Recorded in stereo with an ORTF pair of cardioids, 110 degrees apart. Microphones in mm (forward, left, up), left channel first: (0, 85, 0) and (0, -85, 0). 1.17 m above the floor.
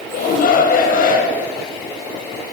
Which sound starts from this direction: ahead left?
A shout, at 0.1 s.